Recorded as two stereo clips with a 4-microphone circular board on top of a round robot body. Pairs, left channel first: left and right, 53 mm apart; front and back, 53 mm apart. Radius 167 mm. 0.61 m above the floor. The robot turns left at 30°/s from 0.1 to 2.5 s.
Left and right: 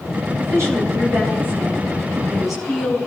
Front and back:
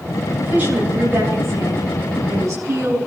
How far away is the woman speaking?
About 8.5 m.